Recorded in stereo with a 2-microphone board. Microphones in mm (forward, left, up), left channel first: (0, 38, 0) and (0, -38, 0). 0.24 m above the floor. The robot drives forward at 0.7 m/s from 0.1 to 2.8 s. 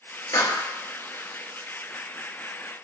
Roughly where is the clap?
Left.